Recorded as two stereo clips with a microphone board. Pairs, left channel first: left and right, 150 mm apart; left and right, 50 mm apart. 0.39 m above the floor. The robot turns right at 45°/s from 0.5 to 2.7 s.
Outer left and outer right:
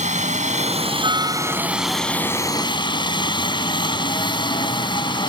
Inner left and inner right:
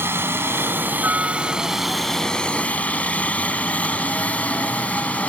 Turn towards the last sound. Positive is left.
turn(degrees=35)